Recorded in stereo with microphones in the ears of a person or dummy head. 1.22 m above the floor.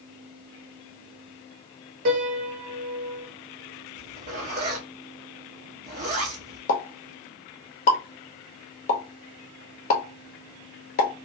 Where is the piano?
45° right (ahead or behind), 0.8 m.